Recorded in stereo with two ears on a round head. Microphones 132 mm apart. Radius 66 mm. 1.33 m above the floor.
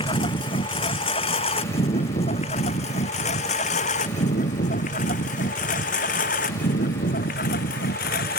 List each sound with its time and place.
0.0 s a lawn mower: 35° left (ahead or behind); by 8.4 s 70° left (ahead or behind)